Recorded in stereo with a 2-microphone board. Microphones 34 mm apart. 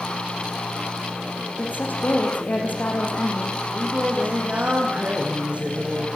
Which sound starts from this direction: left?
A woman speaking, at 1.6 s.